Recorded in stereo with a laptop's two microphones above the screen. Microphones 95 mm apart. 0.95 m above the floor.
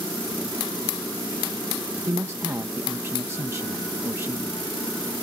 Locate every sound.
2.1 s a man speaking: 25° right (ahead or behind)